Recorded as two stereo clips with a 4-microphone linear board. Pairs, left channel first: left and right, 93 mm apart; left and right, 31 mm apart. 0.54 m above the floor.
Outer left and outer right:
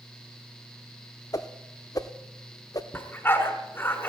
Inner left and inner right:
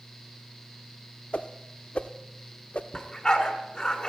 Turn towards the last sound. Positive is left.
turn(degrees=25)  # may be behind; listen again after turning